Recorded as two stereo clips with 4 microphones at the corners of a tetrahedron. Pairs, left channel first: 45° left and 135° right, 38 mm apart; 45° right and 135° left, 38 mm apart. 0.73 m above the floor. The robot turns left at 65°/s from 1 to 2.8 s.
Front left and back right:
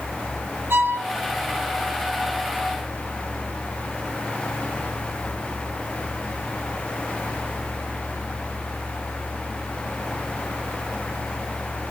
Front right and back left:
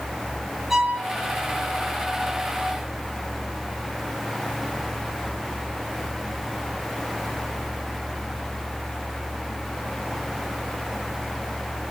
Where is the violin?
145° right, 5.5 m.